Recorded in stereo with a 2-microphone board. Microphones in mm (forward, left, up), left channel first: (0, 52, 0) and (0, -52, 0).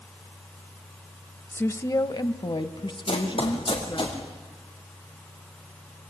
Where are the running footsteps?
65° left (ahead or behind), 5.5 m; by 4.2 s 50° left (ahead or behind), 5.5 m.